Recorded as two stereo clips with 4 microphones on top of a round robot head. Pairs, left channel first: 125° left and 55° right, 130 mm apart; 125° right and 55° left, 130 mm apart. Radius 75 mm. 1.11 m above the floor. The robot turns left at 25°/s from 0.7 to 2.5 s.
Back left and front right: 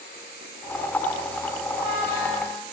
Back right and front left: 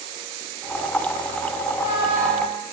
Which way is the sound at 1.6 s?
110° right.